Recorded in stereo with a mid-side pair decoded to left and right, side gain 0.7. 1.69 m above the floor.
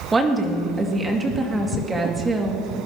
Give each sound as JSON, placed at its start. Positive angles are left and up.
{"t": 0.1, "sound": "a woman speaking", "azimuth_deg": -15, "distance_m": 2.0}